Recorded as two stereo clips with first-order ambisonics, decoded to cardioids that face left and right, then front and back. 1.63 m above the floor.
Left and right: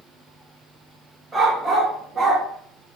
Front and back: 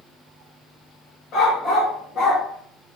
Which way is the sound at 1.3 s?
20° right.